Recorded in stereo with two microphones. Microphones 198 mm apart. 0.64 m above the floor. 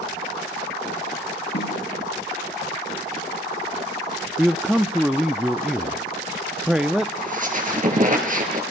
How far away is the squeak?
About 3.5 m.